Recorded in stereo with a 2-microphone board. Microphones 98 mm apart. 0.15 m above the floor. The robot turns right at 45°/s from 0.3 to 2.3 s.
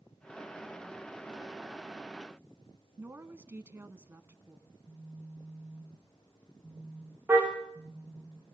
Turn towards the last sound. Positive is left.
turn(degrees=-20)  # may be behind; listen again after turning